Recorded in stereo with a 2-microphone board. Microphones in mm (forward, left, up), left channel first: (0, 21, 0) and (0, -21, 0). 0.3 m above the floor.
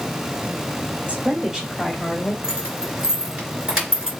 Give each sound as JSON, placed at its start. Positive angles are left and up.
{"t": 1.1, "sound": "a woman speaking", "side_deg": -25, "distance_m": 1.3}
{"t": 2.4, "sound": "keys jangling", "side_deg": -15, "distance_m": 2.5}